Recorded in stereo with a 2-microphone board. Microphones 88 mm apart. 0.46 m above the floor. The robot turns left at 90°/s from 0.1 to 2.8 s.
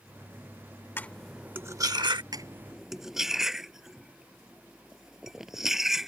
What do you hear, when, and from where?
1.0 s cutlery clinking: 25° left (ahead or behind); by 2.2 s 60° right (ahead or behind)
2.3 s cutlery clinking: 50° right (ahead or behind); by 6.1 s 5° right (ahead or behind)